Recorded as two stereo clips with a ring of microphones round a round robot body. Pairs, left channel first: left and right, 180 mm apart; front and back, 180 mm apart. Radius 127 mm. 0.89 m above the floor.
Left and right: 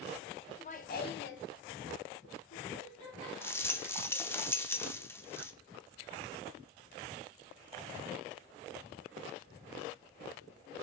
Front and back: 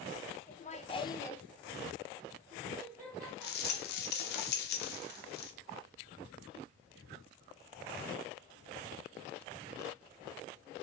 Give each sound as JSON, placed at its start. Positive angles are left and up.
{"t": 0.5, "sound": "laughter", "azimuth_deg": 35, "distance_m": 0.7}
{"t": 3.4, "sound": "a rattle", "azimuth_deg": 15, "distance_m": 0.5}